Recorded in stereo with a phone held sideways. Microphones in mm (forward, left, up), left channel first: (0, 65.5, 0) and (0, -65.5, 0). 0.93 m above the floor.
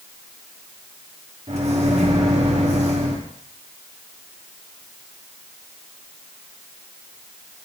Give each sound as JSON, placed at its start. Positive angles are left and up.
{"t": 1.5, "sound": "a microwave", "side_deg": -55, "distance_m": 1.2}